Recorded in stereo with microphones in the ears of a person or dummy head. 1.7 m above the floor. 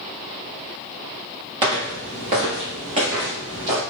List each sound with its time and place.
1.6 s footsteps: 30° right (ahead or behind), 1.9 m; by 3.8 s 20° right (ahead or behind), 1.9 m